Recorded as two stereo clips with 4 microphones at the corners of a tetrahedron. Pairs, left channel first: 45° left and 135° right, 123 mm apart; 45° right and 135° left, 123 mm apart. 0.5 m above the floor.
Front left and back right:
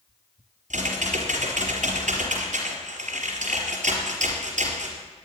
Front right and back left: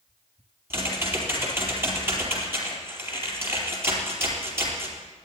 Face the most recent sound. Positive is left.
turn(degrees=-155)